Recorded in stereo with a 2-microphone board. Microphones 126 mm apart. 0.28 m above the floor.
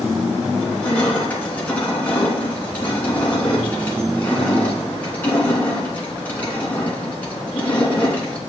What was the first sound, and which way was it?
Crushing, 15° left (ahead or behind).